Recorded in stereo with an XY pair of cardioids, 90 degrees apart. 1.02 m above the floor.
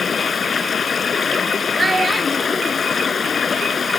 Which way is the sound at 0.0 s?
45° left.